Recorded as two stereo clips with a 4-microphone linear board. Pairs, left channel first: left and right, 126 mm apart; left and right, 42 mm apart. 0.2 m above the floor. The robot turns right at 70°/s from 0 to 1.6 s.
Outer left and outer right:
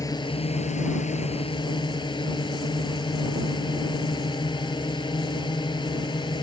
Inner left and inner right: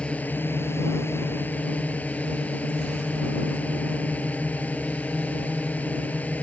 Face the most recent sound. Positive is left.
turn(degrees=140)